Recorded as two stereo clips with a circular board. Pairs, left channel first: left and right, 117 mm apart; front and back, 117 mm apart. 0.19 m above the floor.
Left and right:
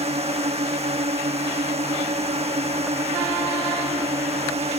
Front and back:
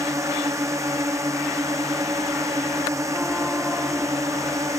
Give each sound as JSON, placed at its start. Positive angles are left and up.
{"t": 0.0, "sound": "a drone", "azimuth_deg": -115}